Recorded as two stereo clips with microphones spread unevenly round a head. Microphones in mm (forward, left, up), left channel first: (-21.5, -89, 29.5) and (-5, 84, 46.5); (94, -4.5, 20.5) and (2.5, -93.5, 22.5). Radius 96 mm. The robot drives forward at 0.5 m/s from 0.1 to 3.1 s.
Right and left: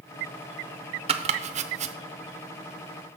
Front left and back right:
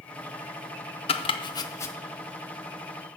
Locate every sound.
1.1 s chopping: 40° left, 0.7 m; by 1.9 s 105° left, 0.6 m